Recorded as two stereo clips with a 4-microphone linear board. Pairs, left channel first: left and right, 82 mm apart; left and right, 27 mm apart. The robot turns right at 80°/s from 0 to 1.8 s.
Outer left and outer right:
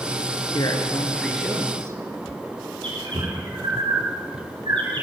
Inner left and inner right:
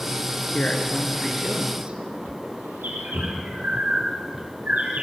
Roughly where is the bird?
Right.